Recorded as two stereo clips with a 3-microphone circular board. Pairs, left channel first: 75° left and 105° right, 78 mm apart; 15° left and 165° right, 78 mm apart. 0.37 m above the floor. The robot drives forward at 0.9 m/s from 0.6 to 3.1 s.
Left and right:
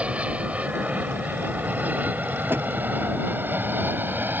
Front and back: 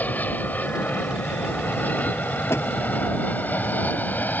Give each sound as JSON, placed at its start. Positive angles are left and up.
{"t": 0.0, "sound": "an aircraft", "azimuth_deg": -40}
{"t": 2.5, "sound": "a door slam", "azimuth_deg": -40}